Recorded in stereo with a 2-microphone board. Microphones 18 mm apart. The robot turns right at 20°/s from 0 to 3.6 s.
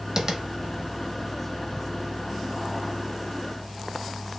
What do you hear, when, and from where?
0.2 s tapping: 40° right (ahead or behind), 0.6 m; by 0.4 s 35° right (ahead or behind), 0.6 m